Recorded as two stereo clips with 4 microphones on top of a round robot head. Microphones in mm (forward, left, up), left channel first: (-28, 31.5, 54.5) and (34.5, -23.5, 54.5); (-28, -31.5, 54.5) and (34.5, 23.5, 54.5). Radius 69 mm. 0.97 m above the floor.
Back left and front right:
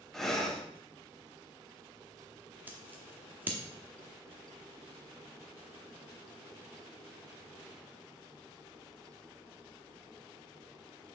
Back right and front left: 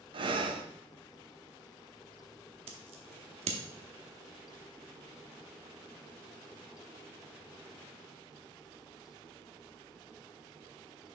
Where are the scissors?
30° left, 0.8 m.